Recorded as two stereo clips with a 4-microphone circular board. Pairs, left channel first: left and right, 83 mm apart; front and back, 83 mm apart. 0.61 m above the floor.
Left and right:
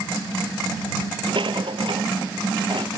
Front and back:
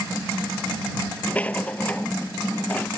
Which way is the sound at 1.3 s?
75° right.